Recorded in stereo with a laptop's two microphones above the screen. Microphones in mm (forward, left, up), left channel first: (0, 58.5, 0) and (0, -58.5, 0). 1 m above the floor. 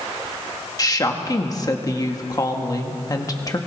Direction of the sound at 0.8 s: 30° left (ahead or behind).